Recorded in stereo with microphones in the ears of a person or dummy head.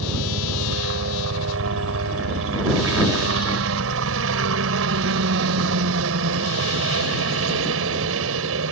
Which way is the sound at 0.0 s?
75° right (ahead or behind).